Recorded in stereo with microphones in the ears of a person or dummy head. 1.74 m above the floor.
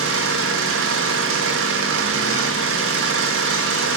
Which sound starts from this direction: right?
An engine running, at 0.0 s.